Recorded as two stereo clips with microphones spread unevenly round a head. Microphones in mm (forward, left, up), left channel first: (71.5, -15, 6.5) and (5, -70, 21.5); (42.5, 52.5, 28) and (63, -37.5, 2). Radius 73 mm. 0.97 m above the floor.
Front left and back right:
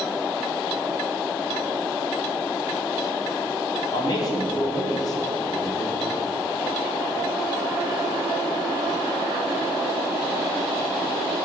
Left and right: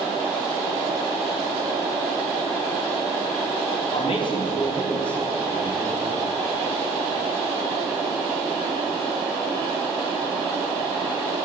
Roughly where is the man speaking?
Left.